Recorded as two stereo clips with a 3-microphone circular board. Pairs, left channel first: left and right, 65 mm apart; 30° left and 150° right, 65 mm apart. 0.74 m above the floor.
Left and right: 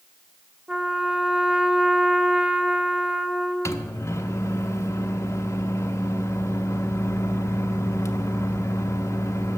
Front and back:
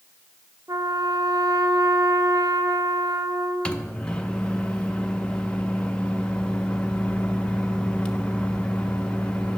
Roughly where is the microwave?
Left.